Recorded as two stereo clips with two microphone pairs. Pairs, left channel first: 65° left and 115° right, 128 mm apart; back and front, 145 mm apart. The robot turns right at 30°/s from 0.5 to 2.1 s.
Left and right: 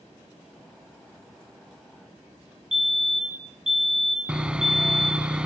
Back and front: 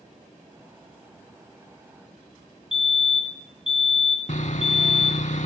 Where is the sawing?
160° left, 0.6 m.